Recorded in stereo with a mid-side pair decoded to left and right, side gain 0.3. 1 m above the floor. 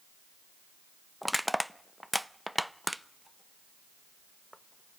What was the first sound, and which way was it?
Crushing, straight ahead.